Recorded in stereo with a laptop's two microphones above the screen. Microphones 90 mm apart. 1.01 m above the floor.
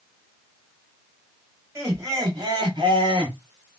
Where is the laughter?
30° right (ahead or behind), 1.8 m; by 3.4 s 70° right (ahead or behind), 1.7 m.